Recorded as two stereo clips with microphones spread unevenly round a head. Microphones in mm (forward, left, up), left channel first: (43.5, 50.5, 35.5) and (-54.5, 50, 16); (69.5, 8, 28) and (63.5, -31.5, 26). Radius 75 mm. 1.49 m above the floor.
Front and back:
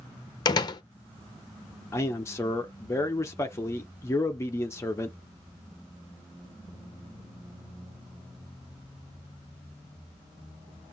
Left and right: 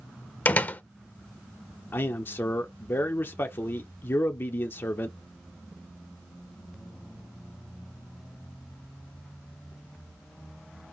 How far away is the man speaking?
About 0.8 m.